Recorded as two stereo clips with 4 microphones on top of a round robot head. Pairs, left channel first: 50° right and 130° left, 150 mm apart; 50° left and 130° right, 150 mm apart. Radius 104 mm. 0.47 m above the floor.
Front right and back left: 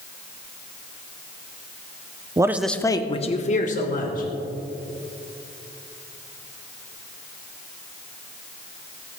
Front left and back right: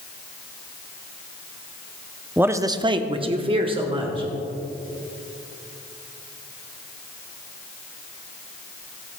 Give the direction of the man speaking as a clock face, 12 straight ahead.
7 o'clock.